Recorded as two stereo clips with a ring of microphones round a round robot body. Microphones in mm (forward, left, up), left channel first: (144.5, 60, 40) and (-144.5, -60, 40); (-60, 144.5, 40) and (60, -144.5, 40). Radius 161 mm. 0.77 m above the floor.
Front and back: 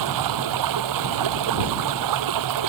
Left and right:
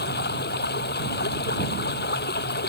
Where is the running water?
175° left.